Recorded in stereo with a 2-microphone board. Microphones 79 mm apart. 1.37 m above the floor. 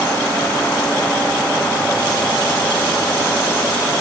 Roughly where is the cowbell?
I don't hear a cowbell.